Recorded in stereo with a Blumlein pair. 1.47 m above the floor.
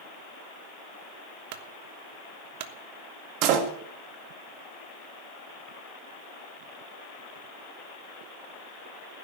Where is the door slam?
40° right, 2.5 m.